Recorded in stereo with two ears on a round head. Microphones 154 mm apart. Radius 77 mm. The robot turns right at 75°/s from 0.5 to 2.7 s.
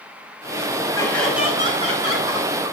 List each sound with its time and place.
0.9 s laughter: 25° left (ahead or behind), 6.5 m; by 2.7 s 70° right (ahead or behind), 6.5 m